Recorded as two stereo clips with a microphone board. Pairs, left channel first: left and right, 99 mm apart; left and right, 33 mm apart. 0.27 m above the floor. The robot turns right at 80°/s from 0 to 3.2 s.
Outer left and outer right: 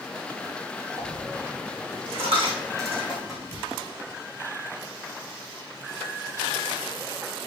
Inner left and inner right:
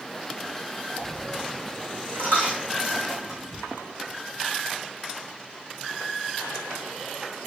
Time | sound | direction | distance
1.0 | a dropped coin | centre (ahead or behind) | 4.5 m